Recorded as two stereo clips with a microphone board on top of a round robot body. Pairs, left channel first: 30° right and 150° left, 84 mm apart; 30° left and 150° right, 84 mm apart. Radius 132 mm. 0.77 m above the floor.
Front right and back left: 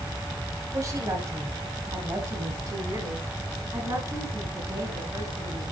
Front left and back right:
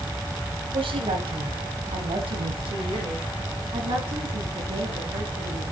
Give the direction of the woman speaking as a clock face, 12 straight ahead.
5 o'clock.